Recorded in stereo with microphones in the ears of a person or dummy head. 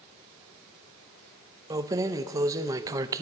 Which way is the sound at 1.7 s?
20° right (ahead or behind).